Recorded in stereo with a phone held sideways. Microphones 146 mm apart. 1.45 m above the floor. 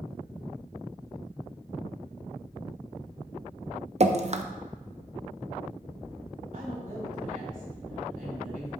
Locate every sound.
4.0 s dripping: 50° right (ahead or behind), 0.6 m
6.5 s a woman speaking: 75° right (ahead or behind), 4.5 m